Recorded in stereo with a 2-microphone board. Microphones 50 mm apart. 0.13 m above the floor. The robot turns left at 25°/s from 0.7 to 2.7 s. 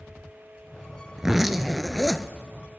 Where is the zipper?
10° right (ahead or behind), 0.5 m; by 2.3 s 15° left (ahead or behind), 0.5 m.